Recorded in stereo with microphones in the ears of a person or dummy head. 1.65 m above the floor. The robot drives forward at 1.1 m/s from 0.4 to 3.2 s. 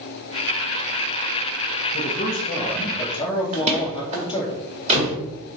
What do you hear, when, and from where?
1.9 s a man speaking: 45° left (ahead or behind), 1.5 m; by 4.5 s 25° left (ahead or behind), 2.5 m
3.5 s a door slam: 40° right (ahead or behind), 2 m